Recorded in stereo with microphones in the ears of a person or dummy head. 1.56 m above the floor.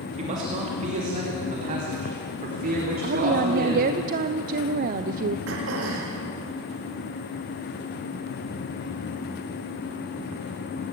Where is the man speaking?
40° right (ahead or behind), 2.5 m; by 3.9 s 50° right (ahead or behind), 5.5 m.